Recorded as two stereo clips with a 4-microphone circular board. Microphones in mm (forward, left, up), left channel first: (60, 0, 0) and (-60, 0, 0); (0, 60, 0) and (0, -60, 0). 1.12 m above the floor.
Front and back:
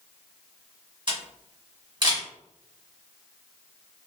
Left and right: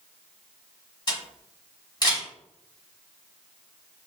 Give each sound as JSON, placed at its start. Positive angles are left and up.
{"t": 1.1, "sound": "a camera shutter", "azimuth_deg": 135, "distance_m": 1.8}